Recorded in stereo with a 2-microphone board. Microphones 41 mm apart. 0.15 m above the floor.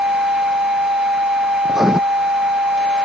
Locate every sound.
1.6 s writing: 10° right (ahead or behind)